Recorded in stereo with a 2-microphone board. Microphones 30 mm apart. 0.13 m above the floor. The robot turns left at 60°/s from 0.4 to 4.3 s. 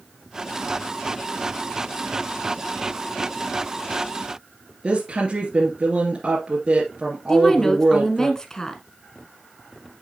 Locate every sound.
4.8 s a woman speaking: 40° right (ahead or behind), 2.5 m
7.3 s a woman speaking: 20° left (ahead or behind), 1.4 m